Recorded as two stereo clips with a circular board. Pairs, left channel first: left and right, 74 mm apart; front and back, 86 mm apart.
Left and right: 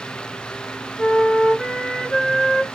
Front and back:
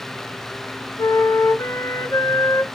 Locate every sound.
1.0 s a flute: 15° left, 0.6 m